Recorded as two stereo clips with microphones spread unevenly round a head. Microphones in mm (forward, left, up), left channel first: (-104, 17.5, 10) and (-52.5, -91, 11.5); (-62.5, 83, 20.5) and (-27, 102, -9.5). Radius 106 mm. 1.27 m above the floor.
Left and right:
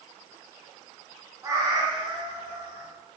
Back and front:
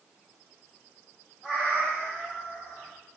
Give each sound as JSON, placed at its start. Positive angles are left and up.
{"t": 1.4, "sound": "a cat meowing", "azimuth_deg": -120, "distance_m": 0.7}